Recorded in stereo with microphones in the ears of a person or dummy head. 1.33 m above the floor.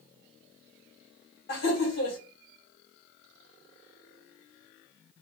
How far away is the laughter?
About 1.4 m.